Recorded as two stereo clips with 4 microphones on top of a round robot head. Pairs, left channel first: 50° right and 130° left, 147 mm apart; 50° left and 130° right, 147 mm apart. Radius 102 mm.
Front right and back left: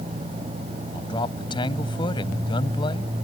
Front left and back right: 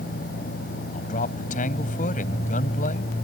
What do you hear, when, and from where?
0.9 s a man speaking: 10° left